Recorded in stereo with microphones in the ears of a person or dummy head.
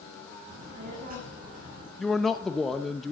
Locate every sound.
0.5 s a child speaking: 45° right (ahead or behind), 3 m
2.0 s a man speaking: centre (ahead or behind), 0.7 m